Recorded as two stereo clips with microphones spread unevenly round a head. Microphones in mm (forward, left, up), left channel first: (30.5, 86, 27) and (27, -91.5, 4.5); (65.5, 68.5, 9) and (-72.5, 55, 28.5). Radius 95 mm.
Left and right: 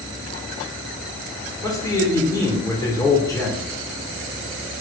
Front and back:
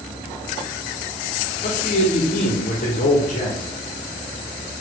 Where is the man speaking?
15° left, 0.8 m.